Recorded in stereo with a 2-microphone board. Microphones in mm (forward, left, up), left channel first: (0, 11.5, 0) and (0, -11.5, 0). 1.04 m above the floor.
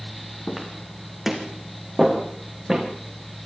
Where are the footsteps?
5° left (ahead or behind), 3.5 m; by 2.9 s 15° right (ahead or behind), 4 m.